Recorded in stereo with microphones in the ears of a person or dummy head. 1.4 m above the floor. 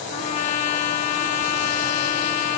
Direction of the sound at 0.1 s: 35° left (ahead or behind).